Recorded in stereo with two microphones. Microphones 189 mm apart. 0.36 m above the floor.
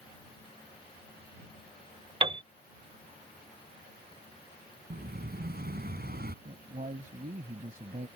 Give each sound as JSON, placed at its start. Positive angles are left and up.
{"t": 2.2, "sound": "a piano", "side_deg": -30}
{"t": 4.9, "sound": "an explosion", "side_deg": -65}
{"t": 6.5, "sound": "a man speaking", "side_deg": -50}